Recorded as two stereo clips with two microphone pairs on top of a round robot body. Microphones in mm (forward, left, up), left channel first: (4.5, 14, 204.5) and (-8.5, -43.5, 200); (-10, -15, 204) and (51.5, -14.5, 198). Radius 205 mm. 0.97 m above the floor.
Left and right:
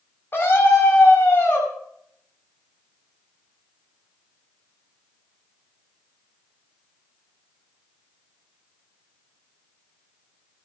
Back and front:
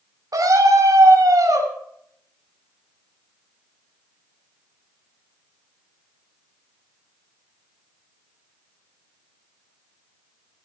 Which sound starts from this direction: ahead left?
A scream, at 0.3 s.